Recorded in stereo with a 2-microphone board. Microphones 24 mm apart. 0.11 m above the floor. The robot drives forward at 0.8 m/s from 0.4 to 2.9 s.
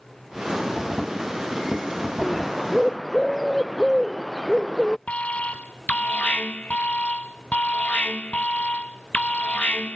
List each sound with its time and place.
2.2 s a bird: 5° left (ahead or behind)
5.1 s an alarm: 80° left